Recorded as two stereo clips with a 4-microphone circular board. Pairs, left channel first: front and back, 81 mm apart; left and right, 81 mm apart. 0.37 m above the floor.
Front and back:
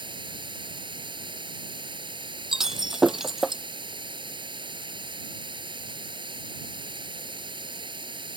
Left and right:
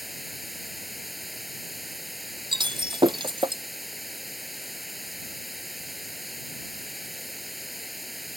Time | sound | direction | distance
0.0 | running water | straight behind | ?
2.5 | breaking glass | 95° right | ?